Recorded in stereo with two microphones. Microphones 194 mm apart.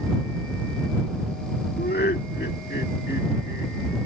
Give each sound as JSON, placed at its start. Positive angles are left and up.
{"t": 1.8, "sound": "laughter", "side_deg": 55}